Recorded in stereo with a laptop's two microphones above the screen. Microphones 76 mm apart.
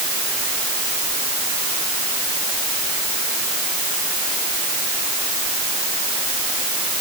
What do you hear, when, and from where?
Only background noise.